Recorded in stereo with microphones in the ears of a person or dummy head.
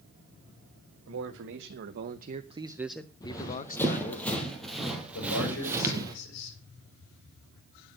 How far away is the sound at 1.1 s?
About 1.6 m.